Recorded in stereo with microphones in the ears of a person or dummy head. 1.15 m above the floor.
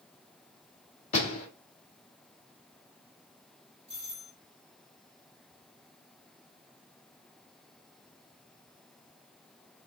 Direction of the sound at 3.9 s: 35° left (ahead or behind).